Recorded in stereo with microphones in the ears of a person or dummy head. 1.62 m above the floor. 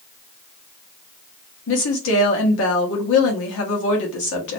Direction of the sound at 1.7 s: 70° left (ahead or behind).